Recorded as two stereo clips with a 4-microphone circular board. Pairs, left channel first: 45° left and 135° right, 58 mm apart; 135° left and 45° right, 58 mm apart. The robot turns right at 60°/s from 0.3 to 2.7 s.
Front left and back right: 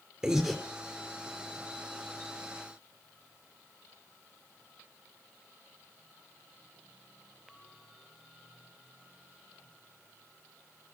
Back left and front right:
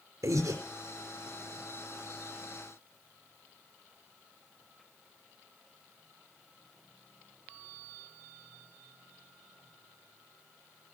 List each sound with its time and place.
0.2 s breathing: 55° right, 4 m; by 0.6 s 35° right, 4 m